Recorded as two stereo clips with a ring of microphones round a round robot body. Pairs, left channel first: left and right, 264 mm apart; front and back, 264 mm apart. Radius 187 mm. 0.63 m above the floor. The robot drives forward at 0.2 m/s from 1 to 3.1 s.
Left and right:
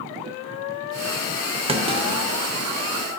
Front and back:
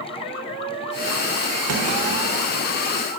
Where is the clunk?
165° right, 0.7 m.